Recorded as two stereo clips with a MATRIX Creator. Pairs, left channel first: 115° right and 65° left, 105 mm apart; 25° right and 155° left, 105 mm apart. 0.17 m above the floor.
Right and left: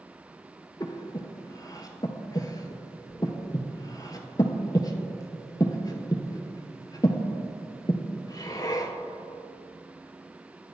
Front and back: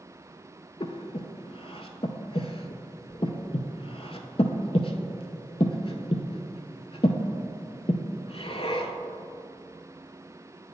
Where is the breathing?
55° right, 0.5 m.